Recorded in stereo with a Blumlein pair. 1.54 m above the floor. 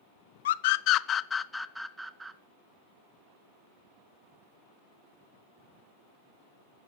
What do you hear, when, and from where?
0.5 s a scream: 60° left, 1.0 m; by 2.4 s 15° right, 1.5 m